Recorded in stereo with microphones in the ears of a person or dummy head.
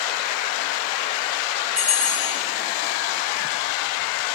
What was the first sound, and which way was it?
A bell, 5° right (ahead or behind).